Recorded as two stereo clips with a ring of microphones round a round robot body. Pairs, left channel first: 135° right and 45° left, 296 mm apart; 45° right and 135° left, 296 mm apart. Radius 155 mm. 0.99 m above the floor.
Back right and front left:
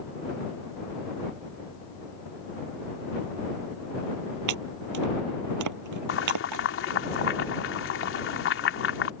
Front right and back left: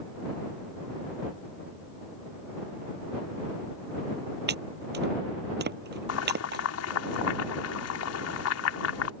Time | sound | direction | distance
4.5 | chopping | 75° left | ?
6.1 | boiling | 85° right | ?